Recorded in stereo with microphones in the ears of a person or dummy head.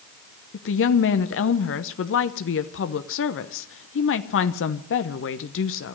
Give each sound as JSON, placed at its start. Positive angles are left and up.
{"t": 0.5, "sound": "a woman speaking", "side_deg": 60, "distance_m": 0.8}